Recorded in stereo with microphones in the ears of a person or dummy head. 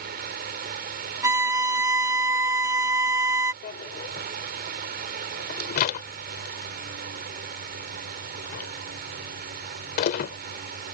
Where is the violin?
15° right (ahead or behind).